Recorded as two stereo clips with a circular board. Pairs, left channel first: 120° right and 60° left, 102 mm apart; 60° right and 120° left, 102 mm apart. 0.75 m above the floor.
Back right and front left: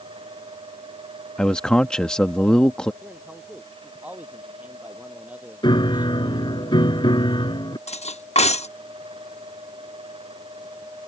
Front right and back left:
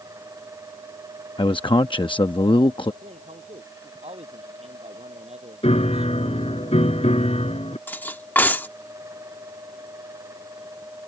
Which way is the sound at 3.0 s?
135° left.